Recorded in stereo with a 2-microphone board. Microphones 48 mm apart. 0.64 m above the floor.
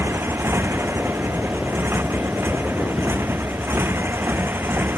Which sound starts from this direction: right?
A motorcycle, at 0.0 s.